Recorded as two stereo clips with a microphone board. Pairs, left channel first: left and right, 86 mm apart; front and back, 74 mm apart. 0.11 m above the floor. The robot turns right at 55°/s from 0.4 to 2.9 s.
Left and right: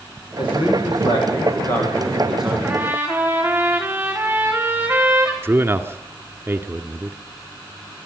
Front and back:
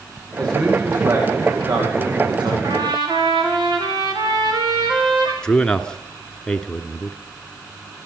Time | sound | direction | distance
0.4 | a man speaking | 75° left | 10 m
2.6 | a trumpet | 170° right | 5.5 m
5.4 | a man speaking | 70° right | 1.3 m